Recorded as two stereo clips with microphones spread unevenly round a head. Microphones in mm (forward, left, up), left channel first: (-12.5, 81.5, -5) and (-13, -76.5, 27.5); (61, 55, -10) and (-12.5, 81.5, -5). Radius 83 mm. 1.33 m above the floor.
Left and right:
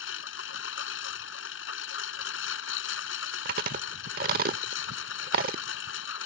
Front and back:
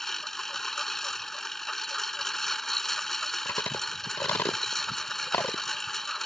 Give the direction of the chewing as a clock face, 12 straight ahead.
3 o'clock.